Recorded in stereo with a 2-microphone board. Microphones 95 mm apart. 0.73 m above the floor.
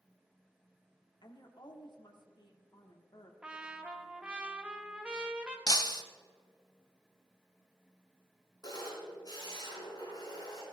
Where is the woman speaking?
50° left (ahead or behind), 1.5 m.